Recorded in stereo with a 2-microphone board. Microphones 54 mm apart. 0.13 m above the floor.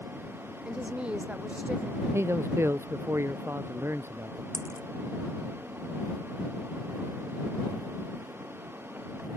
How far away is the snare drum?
No snare drum in this recording.